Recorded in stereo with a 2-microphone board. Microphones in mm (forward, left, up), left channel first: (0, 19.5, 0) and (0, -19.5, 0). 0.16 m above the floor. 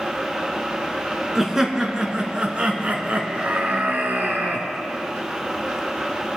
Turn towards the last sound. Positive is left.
turn(degrees=-50)  # may be behind; listen again after turning